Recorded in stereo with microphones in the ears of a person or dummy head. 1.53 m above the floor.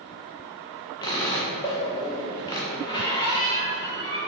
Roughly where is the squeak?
Left.